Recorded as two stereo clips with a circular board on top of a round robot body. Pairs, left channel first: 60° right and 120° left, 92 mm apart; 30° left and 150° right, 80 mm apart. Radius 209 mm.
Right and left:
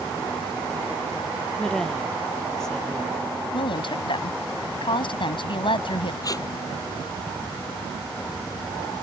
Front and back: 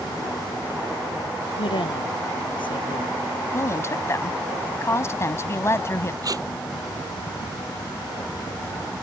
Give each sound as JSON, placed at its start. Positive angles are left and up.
{"t": 1.6, "sound": "a woman speaking", "azimuth_deg": 25}
{"t": 3.5, "sound": "a woman speaking", "azimuth_deg": -25}
{"t": 6.2, "sound": "tape being pulled", "azimuth_deg": -110}